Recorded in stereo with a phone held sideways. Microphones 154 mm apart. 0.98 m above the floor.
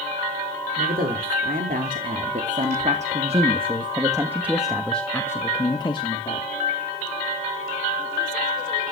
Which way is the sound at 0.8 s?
75° right (ahead or behind).